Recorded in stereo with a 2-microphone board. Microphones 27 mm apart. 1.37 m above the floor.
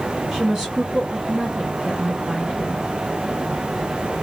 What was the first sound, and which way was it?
A woman speaking, 15° right (ahead or behind).